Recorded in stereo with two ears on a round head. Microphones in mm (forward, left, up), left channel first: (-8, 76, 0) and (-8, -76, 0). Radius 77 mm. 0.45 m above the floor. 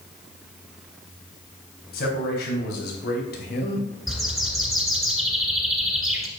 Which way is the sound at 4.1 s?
Centre (ahead or behind).